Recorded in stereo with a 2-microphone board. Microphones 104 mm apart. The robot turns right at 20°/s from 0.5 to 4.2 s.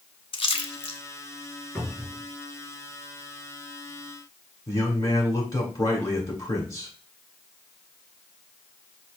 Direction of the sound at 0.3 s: 55° left (ahead or behind).